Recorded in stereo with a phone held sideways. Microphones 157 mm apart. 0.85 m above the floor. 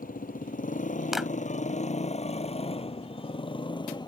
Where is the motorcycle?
60° left (ahead or behind); by 4.1 s 30° left (ahead or behind).